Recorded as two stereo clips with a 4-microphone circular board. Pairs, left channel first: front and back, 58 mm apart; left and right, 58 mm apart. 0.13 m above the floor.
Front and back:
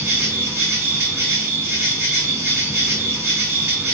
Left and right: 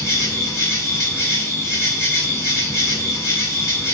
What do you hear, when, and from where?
0.0 s an insect: 130° left, 2 m